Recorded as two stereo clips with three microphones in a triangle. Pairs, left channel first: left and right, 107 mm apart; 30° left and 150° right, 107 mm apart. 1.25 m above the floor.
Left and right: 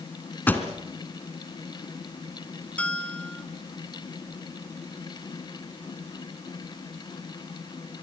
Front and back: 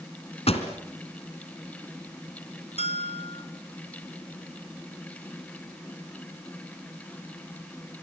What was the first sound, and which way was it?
A pop, 15° left.